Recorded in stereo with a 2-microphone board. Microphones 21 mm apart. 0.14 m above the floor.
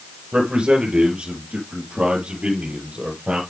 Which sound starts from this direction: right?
A man speaking, at 0.3 s.